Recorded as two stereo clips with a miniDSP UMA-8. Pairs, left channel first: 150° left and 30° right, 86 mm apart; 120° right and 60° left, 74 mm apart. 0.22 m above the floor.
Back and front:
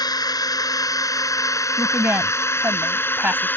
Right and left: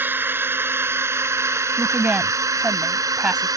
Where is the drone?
120° left; by 3.6 s 85° left.